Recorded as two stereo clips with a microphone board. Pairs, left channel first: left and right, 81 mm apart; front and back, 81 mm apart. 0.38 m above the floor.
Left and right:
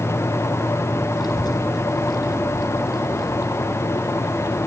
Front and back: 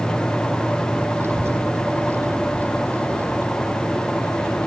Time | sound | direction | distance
1.2 | a child speaking | 120° left | ?